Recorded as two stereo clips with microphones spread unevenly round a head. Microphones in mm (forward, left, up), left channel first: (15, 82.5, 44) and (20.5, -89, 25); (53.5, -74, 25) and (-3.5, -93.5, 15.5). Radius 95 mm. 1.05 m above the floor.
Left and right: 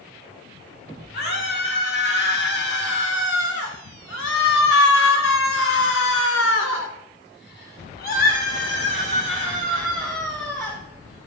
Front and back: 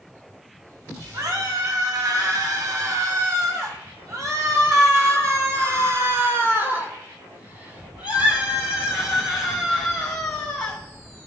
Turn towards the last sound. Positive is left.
turn(degrees=20)